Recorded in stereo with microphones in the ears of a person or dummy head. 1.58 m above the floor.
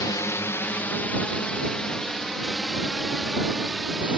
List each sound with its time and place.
0.0 s a drone: 20° left (ahead or behind); by 4.2 s 5° right (ahead or behind)